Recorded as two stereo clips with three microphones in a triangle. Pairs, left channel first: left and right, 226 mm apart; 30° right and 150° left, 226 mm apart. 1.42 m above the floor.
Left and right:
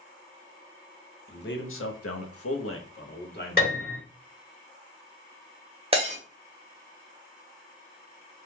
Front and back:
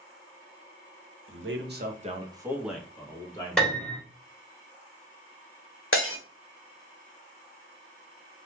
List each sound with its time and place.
1.3 s a man speaking: 130° left, 0.6 m; by 4.0 s 35° left, 1.2 m
3.6 s a piano: 55° left, 1.5 m
5.9 s breaking glass: 30° right, 0.9 m